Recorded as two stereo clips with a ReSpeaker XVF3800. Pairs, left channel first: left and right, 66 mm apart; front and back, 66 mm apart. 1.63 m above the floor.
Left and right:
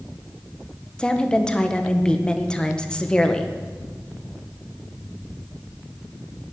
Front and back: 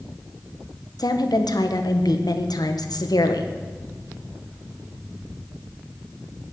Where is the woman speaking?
15° left, 1.6 m.